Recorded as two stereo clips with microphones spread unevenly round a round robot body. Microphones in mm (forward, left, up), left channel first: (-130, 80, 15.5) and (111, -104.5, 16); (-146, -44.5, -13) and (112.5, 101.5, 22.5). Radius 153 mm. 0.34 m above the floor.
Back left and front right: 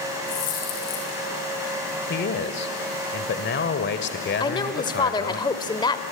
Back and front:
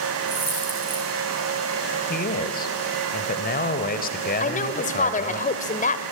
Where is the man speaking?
175° left, 1.5 m.